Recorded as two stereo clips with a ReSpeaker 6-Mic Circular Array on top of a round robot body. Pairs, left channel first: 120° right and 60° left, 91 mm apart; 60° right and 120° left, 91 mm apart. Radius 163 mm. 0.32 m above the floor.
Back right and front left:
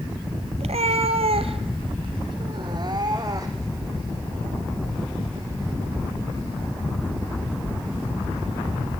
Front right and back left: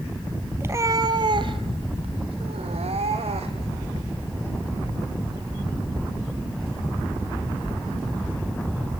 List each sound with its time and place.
0.6 s a cat meowing: 55° left, 1.4 m; by 3.8 s 115° left, 3.5 m